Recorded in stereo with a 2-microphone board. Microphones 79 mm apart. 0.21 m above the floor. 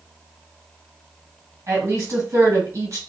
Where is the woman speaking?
40° right (ahead or behind), 1.7 m.